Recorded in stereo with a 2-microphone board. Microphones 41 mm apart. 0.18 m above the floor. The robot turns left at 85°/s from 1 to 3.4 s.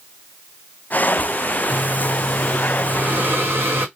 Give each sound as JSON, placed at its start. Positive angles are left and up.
{"t": 1.7, "sound": "breathing", "azimuth_deg": 65, "distance_m": 1.5}